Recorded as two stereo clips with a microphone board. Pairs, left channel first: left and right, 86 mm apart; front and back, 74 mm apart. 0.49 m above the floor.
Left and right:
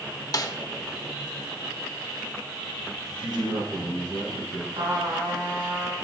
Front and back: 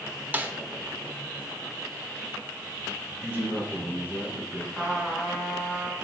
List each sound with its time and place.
0.3 s a snare drum: 120° left, 0.8 m
3.2 s a man speaking: 115° right, 3.5 m
4.7 s a trumpet: 95° right, 3.5 m